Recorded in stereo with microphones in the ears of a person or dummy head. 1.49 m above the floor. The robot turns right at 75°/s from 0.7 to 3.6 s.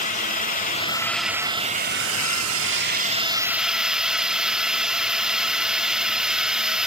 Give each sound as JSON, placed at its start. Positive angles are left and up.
{"t": 0.0, "sound": "a drone", "azimuth_deg": 140}